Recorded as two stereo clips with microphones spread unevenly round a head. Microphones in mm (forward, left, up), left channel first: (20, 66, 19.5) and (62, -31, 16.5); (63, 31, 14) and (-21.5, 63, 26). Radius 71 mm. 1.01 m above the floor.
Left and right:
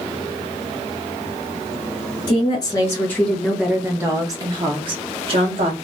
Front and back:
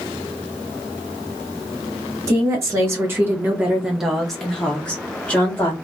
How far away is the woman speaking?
About 0.9 m.